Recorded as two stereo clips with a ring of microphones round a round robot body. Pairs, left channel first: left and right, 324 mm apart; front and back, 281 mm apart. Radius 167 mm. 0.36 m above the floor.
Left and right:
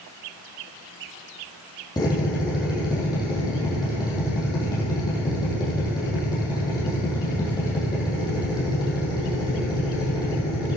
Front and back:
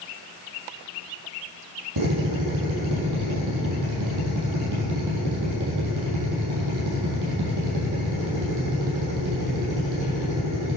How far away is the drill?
About 5 m.